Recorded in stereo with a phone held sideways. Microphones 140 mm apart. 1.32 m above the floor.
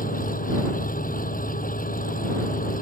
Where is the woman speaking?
I don't hear a woman speaking.